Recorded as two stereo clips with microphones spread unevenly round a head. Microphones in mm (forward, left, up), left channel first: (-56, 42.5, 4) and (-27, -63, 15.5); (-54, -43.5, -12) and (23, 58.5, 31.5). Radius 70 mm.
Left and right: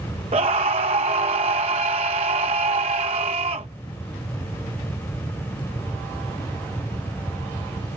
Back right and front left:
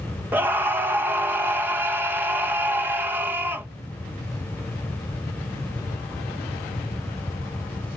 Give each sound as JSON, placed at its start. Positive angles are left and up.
{"t": 0.3, "sound": "a scream", "azimuth_deg": -25}